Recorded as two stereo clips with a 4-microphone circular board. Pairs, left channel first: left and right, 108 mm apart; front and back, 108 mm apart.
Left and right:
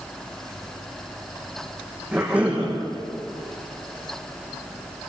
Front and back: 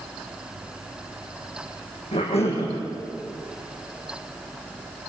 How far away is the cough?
About 7.5 m.